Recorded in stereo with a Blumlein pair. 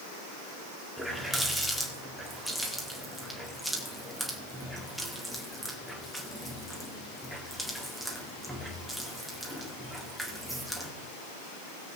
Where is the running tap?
5° right, 1.7 m.